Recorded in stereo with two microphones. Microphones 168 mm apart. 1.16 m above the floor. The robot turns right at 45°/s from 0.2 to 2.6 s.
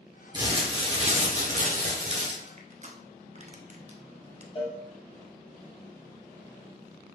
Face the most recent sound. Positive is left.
turn(degrees=35)  # may be behind; listen again after turning